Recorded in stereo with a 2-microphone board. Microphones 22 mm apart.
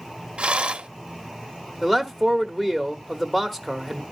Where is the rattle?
60° right (ahead or behind), 0.6 m.